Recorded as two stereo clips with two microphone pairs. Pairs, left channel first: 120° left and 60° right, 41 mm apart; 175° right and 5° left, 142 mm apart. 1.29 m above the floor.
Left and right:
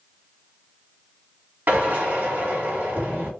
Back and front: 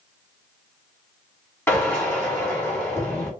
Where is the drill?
100° right, 1.7 m.